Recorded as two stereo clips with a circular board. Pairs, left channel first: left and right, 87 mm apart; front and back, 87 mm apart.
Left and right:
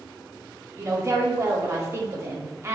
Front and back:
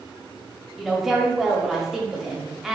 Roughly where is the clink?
No clink in this recording.